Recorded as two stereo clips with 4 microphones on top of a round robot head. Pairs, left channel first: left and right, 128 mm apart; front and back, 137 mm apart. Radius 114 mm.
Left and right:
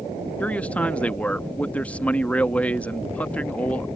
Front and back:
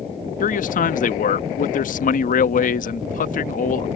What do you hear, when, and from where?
0.4 s a man speaking: 10° left